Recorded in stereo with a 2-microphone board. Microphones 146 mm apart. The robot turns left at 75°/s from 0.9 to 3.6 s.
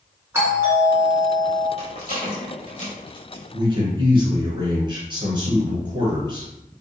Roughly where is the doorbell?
Centre.